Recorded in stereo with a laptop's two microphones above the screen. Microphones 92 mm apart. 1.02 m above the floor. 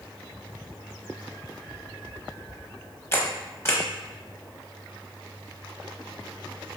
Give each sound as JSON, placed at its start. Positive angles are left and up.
{"t": 3.1, "sound": "a camera shutter", "side_deg": 25, "distance_m": 0.9}